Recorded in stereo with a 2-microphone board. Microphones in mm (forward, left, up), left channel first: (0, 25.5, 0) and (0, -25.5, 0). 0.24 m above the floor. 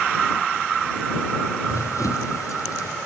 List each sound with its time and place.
1.7 s running footsteps: 90° left